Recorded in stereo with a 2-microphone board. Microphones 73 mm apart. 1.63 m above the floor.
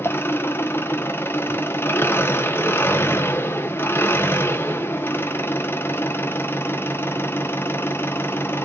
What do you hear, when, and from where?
0.0 s an engine running: 30° left (ahead or behind), 0.8 m